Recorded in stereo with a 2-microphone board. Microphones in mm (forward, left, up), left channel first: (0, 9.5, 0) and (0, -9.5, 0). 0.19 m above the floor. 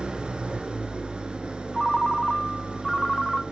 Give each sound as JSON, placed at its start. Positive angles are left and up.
{"t": 0.0, "sound": "an engine running", "side_deg": -60, "distance_m": 1.7}
{"t": 1.7, "sound": "a ringtone", "side_deg": 5, "distance_m": 0.6}